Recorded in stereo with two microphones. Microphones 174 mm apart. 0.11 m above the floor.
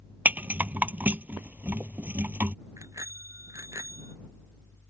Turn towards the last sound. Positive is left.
turn(degrees=-15)  # may be behind; listen again after turning